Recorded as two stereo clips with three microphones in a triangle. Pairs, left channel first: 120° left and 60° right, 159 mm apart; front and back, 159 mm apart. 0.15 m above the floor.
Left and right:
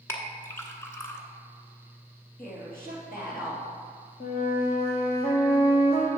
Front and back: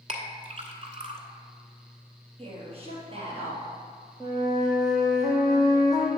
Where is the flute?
115° left, 1.9 m.